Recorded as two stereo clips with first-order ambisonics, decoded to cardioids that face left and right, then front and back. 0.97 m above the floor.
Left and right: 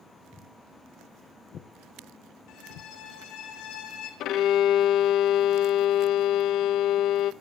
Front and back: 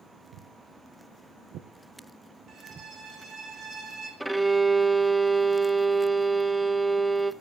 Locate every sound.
0.3 s footsteps: 170° left, 3 m; by 2.9 s 110° left, 2.5 m
2.5 s a violin: 120° left, 4 m
4.2 s a violin: 90° left, 0.6 m